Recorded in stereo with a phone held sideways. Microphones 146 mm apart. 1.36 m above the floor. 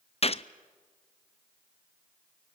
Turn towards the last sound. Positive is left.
turn(degrees=45)  # may be behind; listen again after turning